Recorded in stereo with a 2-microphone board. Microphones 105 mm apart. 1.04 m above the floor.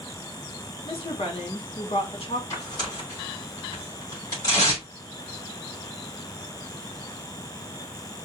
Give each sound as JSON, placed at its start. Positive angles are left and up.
{"t": 0.8, "sound": "a woman speaking", "side_deg": 65, "distance_m": 1.4}
{"t": 2.5, "sound": "tearing paper", "side_deg": 35, "distance_m": 3.0}